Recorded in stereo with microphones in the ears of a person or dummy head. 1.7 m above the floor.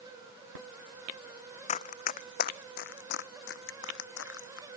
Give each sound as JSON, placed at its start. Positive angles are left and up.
{"t": 1.7, "sound": "running footsteps", "side_deg": 40}